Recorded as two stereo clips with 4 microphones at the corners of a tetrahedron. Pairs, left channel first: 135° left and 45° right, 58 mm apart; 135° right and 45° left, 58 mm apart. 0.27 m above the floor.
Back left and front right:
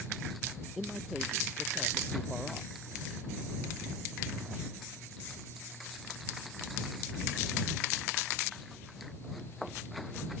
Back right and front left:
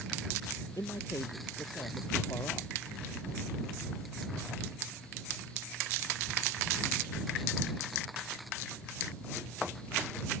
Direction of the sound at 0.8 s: 130° right.